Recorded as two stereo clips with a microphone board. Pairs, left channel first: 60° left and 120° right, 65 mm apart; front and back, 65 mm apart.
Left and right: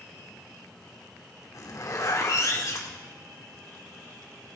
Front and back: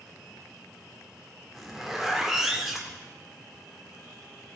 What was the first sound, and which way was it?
A zipper, 95° left.